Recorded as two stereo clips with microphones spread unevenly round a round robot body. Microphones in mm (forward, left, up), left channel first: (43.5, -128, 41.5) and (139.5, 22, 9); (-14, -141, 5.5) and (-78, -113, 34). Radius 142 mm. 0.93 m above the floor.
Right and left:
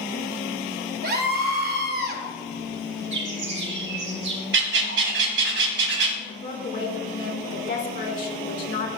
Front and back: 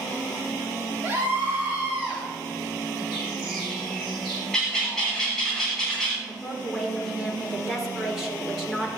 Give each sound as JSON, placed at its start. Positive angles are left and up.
{"t": 1.0, "sound": "a scream", "azimuth_deg": 75, "distance_m": 2.5}
{"t": 3.1, "sound": "a bird", "azimuth_deg": 65, "distance_m": 5.0}
{"t": 4.5, "sound": "a bird", "azimuth_deg": 80, "distance_m": 1.2}
{"t": 6.3, "sound": "a woman speaking", "azimuth_deg": -115, "distance_m": 3.5}